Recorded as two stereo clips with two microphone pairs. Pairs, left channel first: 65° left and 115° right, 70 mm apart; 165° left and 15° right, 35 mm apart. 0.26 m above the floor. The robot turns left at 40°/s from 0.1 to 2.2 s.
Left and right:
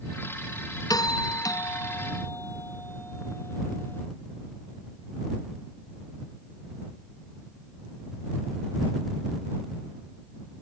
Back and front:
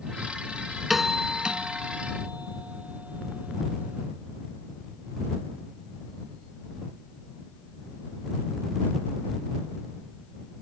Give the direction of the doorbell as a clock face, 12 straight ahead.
10 o'clock.